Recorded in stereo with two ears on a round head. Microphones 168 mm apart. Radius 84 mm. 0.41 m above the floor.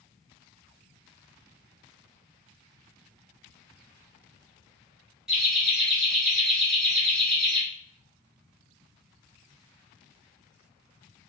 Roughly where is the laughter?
Centre.